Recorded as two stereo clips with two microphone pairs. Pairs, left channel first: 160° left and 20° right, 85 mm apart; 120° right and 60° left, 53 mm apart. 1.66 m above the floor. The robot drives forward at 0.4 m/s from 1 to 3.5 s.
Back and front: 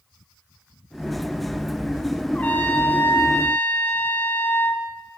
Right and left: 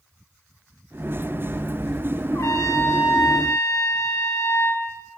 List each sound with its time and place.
2.3 s a trumpet: 130° right, 2.5 m; by 4.8 s 135° right, 2.5 m